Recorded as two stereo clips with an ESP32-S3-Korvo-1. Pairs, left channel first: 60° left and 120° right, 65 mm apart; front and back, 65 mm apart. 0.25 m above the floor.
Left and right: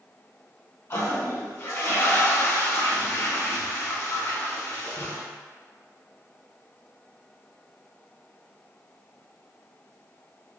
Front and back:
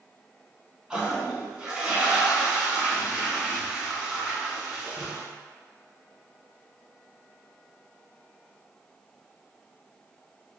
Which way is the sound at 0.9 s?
105° left.